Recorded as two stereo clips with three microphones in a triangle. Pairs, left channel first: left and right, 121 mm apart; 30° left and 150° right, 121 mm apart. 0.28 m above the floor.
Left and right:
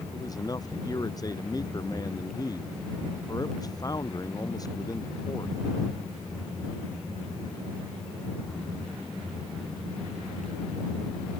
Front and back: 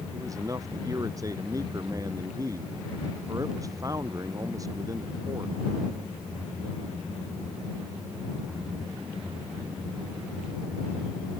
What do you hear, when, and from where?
0.1 s a man speaking: 150° left